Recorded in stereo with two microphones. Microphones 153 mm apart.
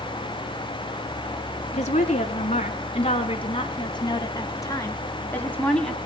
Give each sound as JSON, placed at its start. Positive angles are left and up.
{"t": 1.7, "sound": "a woman speaking", "side_deg": 50, "distance_m": 4.0}